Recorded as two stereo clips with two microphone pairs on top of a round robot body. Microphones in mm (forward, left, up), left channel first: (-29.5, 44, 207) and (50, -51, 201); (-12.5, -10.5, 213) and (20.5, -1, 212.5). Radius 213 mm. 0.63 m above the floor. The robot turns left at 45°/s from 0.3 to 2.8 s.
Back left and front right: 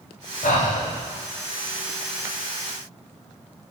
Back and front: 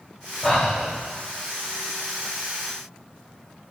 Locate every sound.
0.4 s breathing: 120° left, 0.5 m; by 0.9 s 100° left, 0.5 m